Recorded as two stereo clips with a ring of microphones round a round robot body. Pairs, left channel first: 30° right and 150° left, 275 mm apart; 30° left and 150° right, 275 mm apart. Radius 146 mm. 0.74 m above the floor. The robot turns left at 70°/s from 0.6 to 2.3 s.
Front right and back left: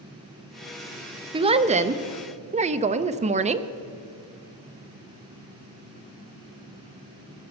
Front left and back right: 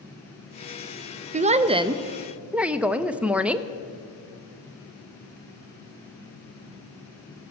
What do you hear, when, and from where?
1.3 s a woman speaking: 165° right, 0.5 m; by 3.7 s 130° left, 0.5 m